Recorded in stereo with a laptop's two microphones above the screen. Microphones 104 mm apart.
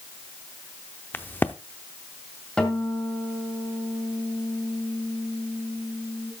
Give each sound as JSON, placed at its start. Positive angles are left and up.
{"t": 1.1, "sound": "a crack", "side_deg": 20, "distance_m": 0.6}
{"t": 2.6, "sound": "a guitar", "side_deg": 10, "distance_m": 2.0}